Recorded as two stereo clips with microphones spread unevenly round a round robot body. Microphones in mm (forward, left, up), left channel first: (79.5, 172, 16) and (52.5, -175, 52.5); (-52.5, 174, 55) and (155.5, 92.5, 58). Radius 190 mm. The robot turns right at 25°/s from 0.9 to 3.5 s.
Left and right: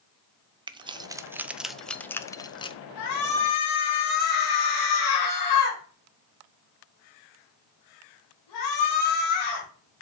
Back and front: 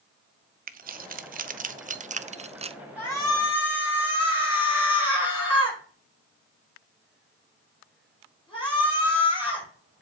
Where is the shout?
80° left, 5 m; by 9.7 s 90° left, 5 m.